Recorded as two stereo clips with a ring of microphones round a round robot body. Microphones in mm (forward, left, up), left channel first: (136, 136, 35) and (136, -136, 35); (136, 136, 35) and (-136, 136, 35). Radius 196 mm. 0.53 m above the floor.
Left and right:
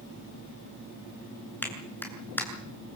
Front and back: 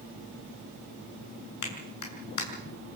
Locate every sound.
1.6 s a clap: 5° left, 7.5 m